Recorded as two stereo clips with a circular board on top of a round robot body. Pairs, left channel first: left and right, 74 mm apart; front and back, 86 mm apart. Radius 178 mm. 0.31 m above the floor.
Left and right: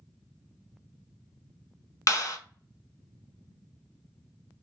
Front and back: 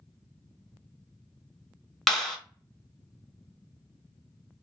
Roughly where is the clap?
Left.